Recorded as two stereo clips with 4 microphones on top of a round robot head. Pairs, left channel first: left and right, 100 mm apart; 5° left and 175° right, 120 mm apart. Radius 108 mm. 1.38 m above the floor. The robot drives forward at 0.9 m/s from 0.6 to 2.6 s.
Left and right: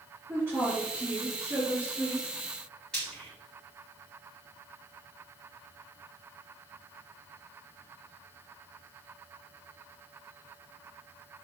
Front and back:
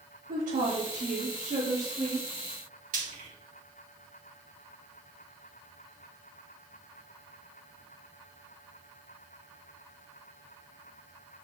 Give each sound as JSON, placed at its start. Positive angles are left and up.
{"t": 0.3, "sound": "a woman speaking", "azimuth_deg": -165, "distance_m": 2.5}
{"t": 2.9, "sound": "frying", "azimuth_deg": 175, "distance_m": 2.5}